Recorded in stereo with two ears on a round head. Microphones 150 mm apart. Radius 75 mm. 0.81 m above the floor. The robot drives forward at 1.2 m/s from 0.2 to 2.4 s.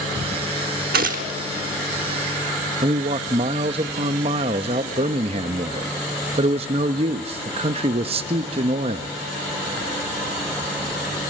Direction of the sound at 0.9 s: 60° right (ahead or behind).